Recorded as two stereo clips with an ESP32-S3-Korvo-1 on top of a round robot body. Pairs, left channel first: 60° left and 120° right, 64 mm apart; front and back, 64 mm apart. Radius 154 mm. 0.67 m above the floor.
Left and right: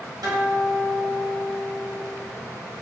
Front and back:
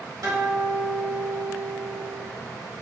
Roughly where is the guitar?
Behind right.